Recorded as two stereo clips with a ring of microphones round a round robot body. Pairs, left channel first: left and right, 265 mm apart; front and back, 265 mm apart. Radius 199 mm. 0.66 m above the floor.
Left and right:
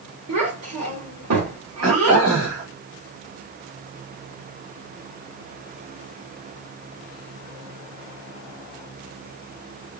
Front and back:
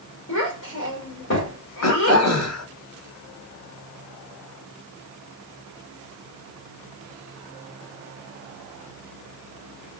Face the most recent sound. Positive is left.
turn(degrees=-15)